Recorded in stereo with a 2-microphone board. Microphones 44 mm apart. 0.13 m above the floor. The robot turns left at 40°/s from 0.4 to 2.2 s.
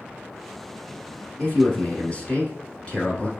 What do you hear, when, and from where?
1.4 s a man speaking: 95° left, 1.2 m; by 3.3 s 60° left, 1.2 m